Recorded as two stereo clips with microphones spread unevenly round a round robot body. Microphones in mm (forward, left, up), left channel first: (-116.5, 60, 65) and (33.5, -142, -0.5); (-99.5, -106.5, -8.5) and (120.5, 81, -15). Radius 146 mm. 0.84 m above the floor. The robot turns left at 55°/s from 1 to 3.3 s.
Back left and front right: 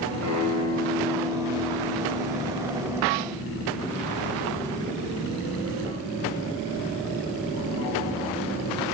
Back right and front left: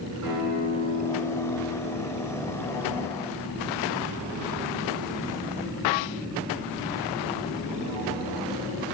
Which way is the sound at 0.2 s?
Straight ahead.